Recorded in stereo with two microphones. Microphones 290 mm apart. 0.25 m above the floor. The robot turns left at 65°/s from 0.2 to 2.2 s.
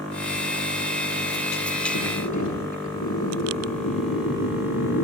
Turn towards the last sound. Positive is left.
turn(degrees=75)  # may be behind; listen again after turning